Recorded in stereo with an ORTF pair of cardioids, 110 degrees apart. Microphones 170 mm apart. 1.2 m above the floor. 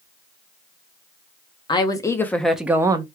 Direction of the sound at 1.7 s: 25° left.